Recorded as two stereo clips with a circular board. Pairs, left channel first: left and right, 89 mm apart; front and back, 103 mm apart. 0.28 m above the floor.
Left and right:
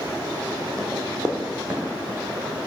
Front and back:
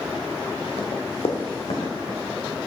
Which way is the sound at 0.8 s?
5° left.